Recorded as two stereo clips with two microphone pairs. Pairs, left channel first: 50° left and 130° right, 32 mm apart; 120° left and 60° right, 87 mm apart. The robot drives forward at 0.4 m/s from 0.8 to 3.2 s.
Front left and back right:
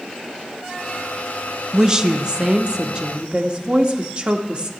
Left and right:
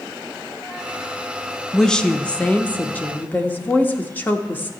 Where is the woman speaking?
170° right, 0.5 m; by 4.7 s straight behind, 0.9 m.